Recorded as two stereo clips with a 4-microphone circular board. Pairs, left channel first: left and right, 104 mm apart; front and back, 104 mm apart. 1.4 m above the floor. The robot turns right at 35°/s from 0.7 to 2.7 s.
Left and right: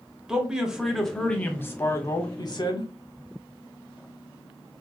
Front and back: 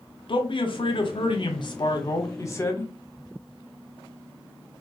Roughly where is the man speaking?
Ahead.